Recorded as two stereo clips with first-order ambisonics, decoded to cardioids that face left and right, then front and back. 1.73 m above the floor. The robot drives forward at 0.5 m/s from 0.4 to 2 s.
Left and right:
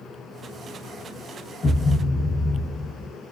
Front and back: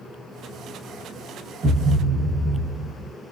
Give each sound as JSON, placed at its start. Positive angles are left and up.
{"t": 1.6, "sound": "a thud", "azimuth_deg": 130, "distance_m": 1.1}